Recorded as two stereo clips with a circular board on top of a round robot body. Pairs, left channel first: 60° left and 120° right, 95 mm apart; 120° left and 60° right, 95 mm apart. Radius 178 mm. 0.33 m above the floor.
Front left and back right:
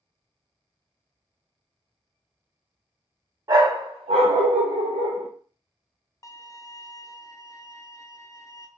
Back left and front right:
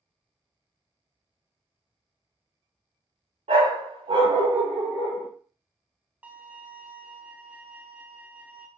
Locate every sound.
3.5 s a dog barking: 65° right, 0.7 m; by 5.3 s 150° right, 1.0 m
6.2 s a violin: 10° left, 0.5 m